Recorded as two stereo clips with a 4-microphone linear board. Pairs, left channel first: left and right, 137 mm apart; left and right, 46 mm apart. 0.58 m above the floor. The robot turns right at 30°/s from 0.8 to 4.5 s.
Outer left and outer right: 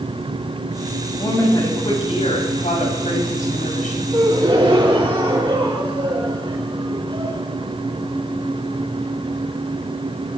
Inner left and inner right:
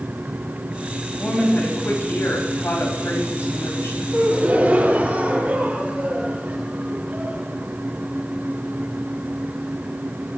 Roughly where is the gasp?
Right.